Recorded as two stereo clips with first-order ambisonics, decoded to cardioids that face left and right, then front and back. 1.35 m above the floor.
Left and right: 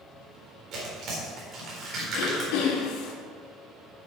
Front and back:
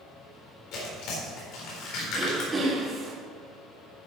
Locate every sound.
0.7 s tearing paper: 35° right, 4 m
2.1 s throat clearing: 100° left, 2.5 m